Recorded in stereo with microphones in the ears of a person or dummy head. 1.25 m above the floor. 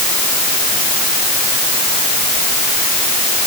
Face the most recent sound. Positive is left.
No sound to turn to.